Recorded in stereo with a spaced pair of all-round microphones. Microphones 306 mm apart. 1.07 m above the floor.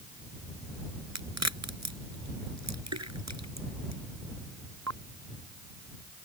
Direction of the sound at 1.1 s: 60° right (ahead or behind).